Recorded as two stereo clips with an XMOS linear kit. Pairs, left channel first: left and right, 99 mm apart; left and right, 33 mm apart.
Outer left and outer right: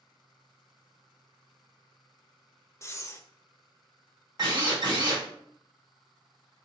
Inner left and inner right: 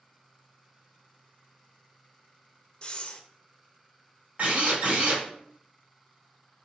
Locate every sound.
2.8 s breathing: 30° left (ahead or behind), 0.5 m
4.4 s a drill: 45° right (ahead or behind), 2.5 m